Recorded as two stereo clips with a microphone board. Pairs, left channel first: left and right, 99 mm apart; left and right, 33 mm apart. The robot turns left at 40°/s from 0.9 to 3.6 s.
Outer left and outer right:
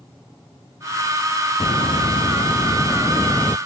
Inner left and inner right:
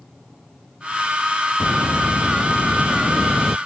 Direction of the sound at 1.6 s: 95° left.